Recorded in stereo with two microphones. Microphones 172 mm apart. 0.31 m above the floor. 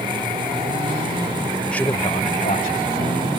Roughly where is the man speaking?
Centre.